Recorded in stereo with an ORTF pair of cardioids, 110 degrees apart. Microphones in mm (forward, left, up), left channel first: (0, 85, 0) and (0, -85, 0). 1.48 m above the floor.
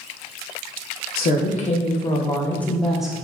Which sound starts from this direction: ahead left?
A woman speaking, at 1.2 s.